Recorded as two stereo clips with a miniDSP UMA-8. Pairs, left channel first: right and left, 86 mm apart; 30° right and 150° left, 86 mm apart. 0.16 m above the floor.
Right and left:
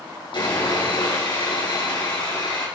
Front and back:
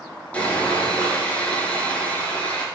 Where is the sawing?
105° right, 5.5 m.